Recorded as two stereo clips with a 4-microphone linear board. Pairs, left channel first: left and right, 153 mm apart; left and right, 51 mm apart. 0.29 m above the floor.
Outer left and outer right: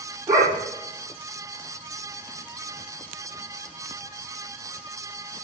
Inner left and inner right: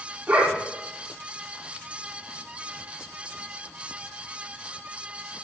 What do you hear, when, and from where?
0.3 s a dog barking: 20° right (ahead or behind), 9.5 m